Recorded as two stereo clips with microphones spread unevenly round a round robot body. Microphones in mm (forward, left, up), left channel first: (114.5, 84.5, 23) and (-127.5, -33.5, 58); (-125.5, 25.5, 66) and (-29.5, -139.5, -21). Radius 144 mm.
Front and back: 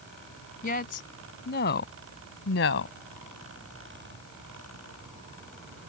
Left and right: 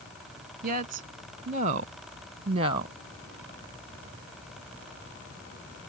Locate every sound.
0.6 s a woman speaking: 30° right; by 3.0 s 10° right